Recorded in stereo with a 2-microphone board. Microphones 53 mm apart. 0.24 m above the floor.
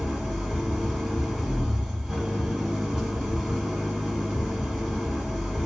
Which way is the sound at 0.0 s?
Centre (ahead or behind).